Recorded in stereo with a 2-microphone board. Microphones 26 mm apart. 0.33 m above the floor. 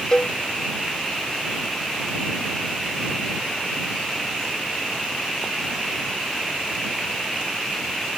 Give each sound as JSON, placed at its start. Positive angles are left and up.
{"t": 0.1, "sound": "a cowbell", "side_deg": 30}